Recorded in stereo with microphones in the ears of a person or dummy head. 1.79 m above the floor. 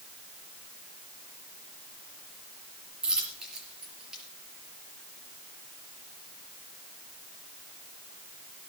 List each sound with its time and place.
3.0 s a dropped coin: 5° right (ahead or behind), 4.5 m